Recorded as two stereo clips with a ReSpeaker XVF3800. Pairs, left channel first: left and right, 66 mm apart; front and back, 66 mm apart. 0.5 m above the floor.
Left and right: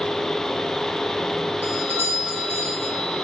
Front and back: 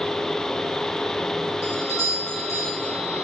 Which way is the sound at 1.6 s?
35° right.